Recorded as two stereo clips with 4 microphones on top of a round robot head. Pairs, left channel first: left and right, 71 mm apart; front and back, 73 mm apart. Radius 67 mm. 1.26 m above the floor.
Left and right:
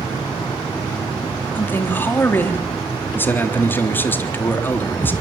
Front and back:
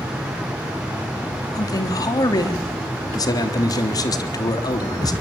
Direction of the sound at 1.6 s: 30° left.